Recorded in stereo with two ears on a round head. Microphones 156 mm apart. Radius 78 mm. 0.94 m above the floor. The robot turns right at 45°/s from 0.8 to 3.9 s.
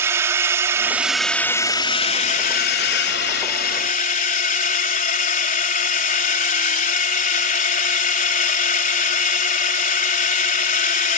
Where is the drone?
15° right; by 11.2 s 120° left.